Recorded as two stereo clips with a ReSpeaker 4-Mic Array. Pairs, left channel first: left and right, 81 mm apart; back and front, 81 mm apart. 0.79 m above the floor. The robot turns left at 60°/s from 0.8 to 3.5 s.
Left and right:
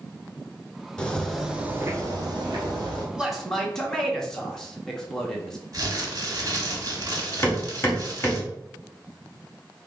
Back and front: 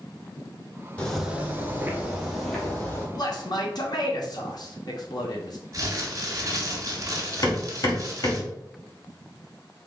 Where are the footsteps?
145° left, 0.7 m; by 3.0 s 130° right, 1.9 m.